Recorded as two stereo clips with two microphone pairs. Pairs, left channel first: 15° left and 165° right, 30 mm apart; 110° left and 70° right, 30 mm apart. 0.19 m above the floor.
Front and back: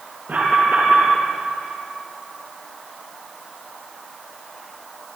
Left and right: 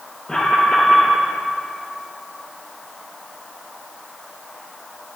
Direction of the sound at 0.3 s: 175° left.